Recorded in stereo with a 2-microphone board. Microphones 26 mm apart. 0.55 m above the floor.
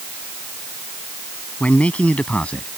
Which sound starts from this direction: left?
A man speaking, at 1.6 s.